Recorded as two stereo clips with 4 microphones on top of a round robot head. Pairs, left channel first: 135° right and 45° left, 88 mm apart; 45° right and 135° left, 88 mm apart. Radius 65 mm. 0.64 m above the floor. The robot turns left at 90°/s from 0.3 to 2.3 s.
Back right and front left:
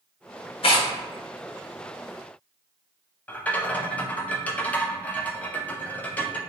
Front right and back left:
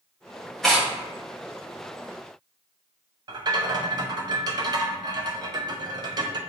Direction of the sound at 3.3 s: 155° left.